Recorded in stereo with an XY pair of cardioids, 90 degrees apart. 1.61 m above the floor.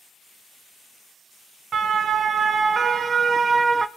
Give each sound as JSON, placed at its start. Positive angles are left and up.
{"t": 1.7, "sound": "a siren", "azimuth_deg": -60, "distance_m": 2.5}